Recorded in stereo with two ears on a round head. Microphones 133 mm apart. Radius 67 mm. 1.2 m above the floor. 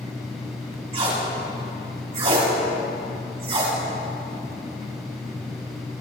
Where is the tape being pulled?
40° right (ahead or behind), 4 m.